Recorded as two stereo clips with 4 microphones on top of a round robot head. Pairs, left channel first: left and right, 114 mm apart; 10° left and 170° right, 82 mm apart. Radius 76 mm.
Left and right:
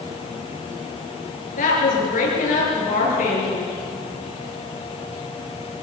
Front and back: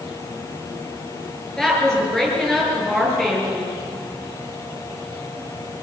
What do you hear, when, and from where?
1.6 s a woman speaking: 90° left, 9 m